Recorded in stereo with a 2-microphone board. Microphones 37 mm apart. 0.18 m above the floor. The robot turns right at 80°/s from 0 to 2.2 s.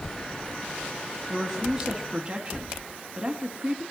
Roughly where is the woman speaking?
Behind left.